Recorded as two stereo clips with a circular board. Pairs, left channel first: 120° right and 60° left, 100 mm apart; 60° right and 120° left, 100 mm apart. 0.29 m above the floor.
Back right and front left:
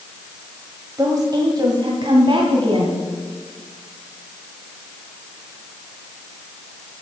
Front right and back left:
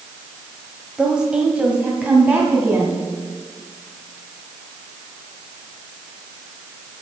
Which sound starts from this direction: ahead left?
A woman speaking, at 1.0 s.